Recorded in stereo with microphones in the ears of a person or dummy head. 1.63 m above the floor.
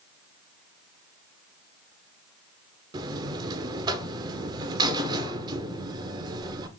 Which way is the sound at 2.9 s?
25° right (ahead or behind).